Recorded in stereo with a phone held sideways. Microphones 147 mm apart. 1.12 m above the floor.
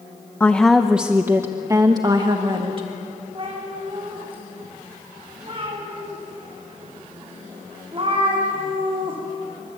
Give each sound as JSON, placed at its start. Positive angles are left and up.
{"t": 0.4, "sound": "a woman speaking", "side_deg": 10, "distance_m": 0.8}
{"t": 3.4, "sound": "a cat meowing", "side_deg": -35, "distance_m": 7.0}